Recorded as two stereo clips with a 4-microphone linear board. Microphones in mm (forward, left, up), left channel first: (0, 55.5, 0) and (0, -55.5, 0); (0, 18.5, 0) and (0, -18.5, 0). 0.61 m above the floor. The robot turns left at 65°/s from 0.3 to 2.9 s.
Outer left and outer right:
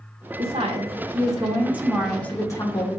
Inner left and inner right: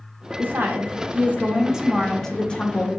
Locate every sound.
0.4 s a woman speaking: 75° right, 1.5 m; by 3.0 s 120° left, 1.5 m